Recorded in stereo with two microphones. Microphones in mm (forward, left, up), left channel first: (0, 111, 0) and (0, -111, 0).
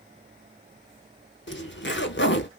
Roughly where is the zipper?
Left.